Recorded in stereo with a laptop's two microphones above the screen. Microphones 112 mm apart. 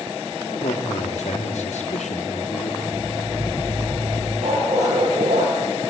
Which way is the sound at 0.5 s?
75° left (ahead or behind).